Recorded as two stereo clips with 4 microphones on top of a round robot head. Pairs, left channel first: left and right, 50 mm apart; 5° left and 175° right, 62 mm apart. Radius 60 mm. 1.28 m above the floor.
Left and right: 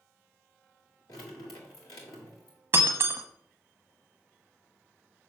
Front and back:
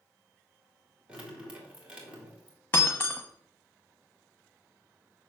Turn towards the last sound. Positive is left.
turn(degrees=-65)